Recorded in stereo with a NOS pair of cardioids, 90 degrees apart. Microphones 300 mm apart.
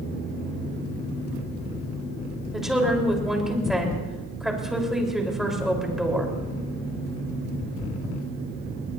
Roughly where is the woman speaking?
Ahead.